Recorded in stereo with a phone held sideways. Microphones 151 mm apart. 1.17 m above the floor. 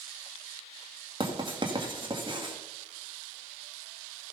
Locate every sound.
1.2 s writing: 30° right (ahead or behind), 2 m